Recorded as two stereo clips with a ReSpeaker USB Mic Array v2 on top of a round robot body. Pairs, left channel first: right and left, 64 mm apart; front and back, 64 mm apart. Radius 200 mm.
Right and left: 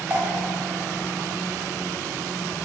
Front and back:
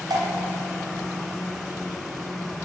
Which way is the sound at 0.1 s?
160° left.